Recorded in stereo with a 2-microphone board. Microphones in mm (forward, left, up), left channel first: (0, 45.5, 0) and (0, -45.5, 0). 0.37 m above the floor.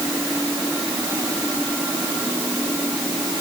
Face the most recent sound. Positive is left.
No sound to turn to.